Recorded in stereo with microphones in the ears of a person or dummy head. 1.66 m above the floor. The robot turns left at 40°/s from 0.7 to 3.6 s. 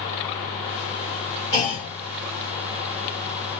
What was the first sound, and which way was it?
A clunk, 20° left (ahead or behind).